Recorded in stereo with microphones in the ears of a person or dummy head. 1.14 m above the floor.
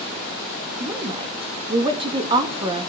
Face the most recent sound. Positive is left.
turn(degrees=-30)  # may be behind; listen again after turning